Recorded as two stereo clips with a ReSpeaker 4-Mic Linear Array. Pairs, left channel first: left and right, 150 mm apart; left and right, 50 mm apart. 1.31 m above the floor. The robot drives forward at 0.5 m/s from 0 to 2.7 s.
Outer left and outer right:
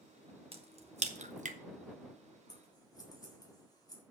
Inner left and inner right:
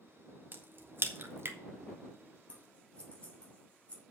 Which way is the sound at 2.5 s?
30° left (ahead or behind).